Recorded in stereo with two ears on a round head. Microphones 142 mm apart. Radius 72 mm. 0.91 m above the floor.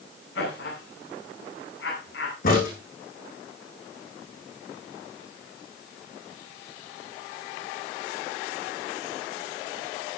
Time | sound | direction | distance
0.3 | laughter | 85° left | 9 m
2.4 | a crack | 60° left (ahead or behind) | 9 m